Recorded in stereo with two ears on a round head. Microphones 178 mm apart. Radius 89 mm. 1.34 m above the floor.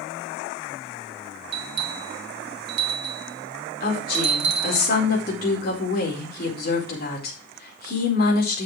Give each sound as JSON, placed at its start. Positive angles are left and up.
{"t": 1.5, "sound": "a bell", "side_deg": -55, "distance_m": 1.6}
{"t": 3.8, "sound": "a woman speaking", "side_deg": 45, "distance_m": 4.5}